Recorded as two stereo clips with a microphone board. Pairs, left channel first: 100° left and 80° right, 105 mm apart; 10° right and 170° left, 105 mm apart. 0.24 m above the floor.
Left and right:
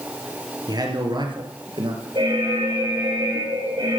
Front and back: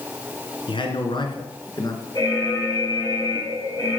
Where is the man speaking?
35° right, 3 m; by 2.0 s 55° right, 3 m.